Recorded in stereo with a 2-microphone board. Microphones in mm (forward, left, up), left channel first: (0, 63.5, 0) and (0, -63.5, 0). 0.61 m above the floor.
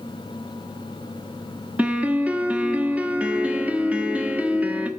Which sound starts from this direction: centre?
A piano, at 1.8 s.